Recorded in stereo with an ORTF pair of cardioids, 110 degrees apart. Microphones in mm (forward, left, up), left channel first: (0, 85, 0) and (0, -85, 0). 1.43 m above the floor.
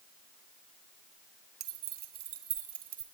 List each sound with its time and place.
1.6 s keys jangling: 70° right, 1.3 m; by 3.0 s 55° right, 2.5 m